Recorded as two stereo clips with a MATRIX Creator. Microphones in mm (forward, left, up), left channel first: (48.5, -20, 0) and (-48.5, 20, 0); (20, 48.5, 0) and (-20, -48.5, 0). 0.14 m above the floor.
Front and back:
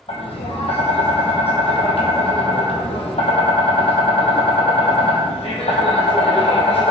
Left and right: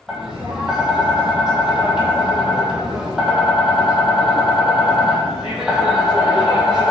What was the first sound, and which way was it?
Tapping, 30° right.